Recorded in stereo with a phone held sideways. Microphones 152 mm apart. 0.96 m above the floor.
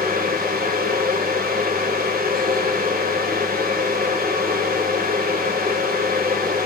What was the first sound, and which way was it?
A fan, 85° right.